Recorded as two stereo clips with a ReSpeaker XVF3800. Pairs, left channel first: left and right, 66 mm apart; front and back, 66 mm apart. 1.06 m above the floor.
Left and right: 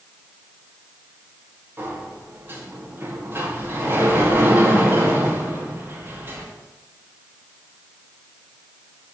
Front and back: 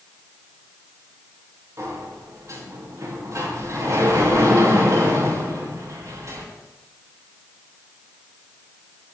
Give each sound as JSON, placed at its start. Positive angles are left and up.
{"t": 1.8, "sound": "a sliding door", "azimuth_deg": -145, "distance_m": 2.0}